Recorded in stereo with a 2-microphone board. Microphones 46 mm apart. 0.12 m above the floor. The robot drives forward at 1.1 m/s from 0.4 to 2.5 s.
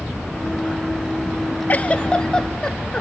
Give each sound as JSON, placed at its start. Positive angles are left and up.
{"t": 1.7, "sound": "a giggle", "side_deg": 40, "distance_m": 0.5}